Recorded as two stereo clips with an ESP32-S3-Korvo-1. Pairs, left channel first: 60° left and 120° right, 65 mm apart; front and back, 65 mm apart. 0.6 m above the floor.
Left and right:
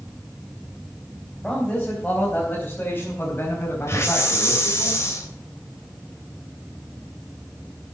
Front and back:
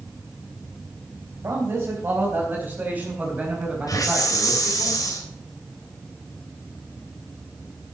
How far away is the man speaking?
About 3.5 m.